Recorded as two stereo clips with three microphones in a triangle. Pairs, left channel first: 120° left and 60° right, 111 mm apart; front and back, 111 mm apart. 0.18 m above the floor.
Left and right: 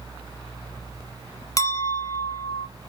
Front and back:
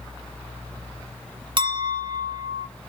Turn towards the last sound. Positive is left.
turn(degrees=165)